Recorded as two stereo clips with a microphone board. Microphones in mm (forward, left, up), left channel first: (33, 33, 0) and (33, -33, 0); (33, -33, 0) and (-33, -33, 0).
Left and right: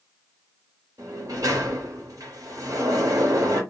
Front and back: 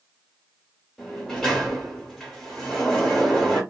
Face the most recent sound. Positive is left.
turn(degrees=-80)